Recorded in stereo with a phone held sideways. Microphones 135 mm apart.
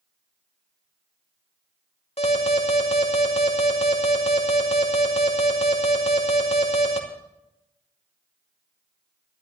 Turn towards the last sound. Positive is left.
turn(degrees=50)  # may be behind; listen again after turning